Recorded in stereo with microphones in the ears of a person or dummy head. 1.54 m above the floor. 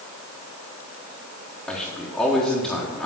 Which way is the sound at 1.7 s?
5° left (ahead or behind).